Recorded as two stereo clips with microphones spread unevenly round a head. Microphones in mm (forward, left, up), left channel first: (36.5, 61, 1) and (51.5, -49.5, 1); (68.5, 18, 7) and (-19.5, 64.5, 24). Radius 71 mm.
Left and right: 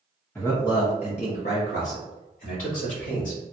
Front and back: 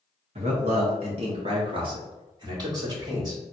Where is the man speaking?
175° left, 1.0 m; by 3.4 s 100° left, 3 m.